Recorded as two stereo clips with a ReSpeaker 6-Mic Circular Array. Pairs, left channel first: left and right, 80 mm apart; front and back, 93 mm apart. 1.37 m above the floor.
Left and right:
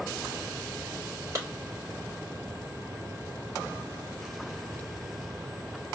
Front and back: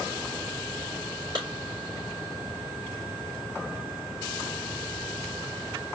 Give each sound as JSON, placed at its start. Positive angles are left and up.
{"t": 1.4, "sound": "a clap", "azimuth_deg": -140, "distance_m": 3.5}